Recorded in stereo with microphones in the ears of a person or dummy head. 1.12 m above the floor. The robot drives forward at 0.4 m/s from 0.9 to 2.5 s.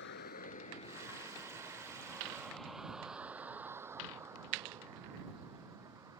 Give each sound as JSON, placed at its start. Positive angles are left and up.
{"t": 0.0, "sound": "a vehicle", "side_deg": 60}